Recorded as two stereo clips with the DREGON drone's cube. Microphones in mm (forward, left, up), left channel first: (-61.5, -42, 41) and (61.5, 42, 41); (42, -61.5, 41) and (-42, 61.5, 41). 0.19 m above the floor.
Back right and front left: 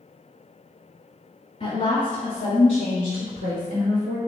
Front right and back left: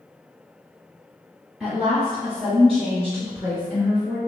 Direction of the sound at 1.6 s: 150° right.